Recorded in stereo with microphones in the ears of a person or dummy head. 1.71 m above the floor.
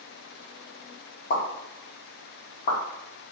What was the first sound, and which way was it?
A pop, 45° left (ahead or behind).